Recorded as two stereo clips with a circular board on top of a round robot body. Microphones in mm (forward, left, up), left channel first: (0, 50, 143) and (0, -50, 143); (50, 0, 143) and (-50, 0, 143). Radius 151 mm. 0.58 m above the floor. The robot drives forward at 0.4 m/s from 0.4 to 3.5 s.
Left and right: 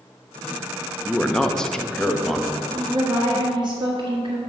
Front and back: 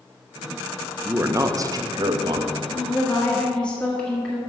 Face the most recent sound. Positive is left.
turn(degrees=-80)